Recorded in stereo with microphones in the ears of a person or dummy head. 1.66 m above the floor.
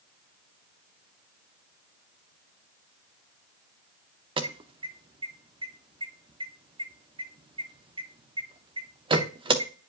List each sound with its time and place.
4.4 s an alarm: 25° right (ahead or behind), 0.7 m